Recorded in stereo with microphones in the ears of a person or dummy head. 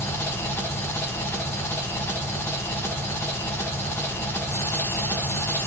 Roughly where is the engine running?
Centre.